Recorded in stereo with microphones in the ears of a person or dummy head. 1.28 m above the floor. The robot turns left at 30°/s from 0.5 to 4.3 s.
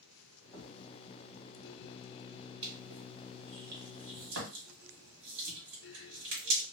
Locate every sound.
0.5 s a thud: 10° left (ahead or behind), 1.6 m; by 0.8 s centre (ahead or behind), 1.6 m
2.6 s crushing: 30° right (ahead or behind), 1.8 m; by 6.6 s 75° right (ahead or behind), 1.8 m